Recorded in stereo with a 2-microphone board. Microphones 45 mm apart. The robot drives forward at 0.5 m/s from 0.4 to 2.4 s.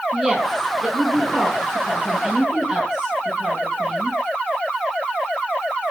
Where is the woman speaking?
10° right (ahead or behind), 9.5 m; by 4.2 s 15° right (ahead or behind), 8.5 m.